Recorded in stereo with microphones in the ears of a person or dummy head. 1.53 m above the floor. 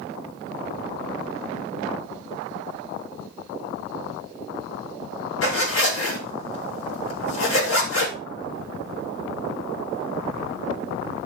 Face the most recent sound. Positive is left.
turn(degrees=75)  # may be behind; listen again after turning